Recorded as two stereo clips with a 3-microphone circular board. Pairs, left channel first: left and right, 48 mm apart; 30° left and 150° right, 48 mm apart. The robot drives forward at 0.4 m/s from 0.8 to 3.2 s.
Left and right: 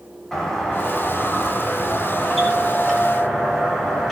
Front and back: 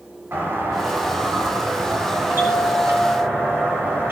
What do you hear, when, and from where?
0.3 s a doorbell: 170° left, 8.5 m; by 4.1 s 175° left, 9.5 m